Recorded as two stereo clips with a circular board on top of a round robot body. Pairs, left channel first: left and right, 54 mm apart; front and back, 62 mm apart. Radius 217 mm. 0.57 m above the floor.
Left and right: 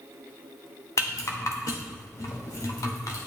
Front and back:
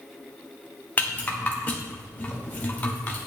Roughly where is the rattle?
Ahead left.